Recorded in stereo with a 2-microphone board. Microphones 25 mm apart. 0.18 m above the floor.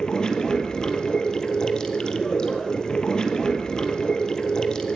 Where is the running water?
35° left (ahead or behind), 1.7 m.